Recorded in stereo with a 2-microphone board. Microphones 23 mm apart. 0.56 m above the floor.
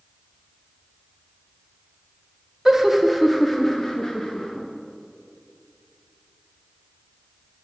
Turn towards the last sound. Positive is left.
turn(degrees=40)  # may be behind; listen again after turning